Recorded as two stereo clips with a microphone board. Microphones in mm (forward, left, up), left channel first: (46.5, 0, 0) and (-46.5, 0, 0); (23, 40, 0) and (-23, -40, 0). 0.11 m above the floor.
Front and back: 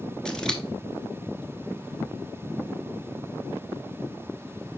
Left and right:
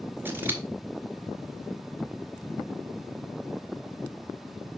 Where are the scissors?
75° right, 1.1 m.